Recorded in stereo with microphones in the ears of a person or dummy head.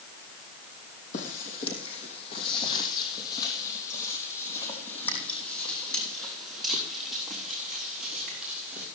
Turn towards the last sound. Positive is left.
turn(degrees=-5)  # may be behind; listen again after turning